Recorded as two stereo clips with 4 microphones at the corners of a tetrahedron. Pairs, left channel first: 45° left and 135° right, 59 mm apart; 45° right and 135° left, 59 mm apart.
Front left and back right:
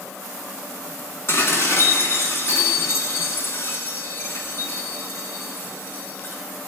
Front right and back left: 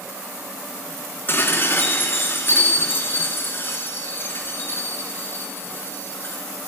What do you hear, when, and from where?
1.3 s dishes clattering: 5° left, 1.9 m